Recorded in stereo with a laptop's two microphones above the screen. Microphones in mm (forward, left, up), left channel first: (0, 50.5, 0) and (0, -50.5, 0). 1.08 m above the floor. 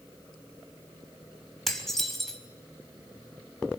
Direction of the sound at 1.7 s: 5° left (ahead or behind).